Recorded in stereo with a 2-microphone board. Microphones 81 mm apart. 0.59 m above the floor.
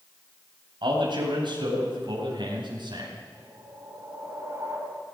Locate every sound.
0.8 s a man speaking: 75° right (ahead or behind), 3.5 m
3.3 s a whoosh: 35° right (ahead or behind), 4.5 m